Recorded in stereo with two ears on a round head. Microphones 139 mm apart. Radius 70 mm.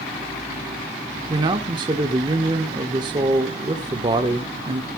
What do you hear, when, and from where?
1.3 s a man speaking: 30° right (ahead or behind), 1.1 m